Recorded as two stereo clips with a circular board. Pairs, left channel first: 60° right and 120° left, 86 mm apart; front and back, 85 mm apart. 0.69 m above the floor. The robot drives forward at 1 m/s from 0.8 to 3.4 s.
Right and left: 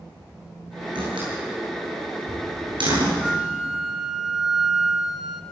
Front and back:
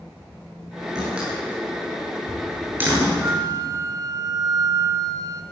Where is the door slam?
100° left, 8.5 m; by 3.1 s 115° left, 9.5 m.